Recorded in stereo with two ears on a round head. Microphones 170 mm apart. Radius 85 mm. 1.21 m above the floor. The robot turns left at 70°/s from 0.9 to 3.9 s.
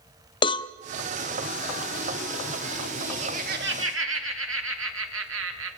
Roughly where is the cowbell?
Left.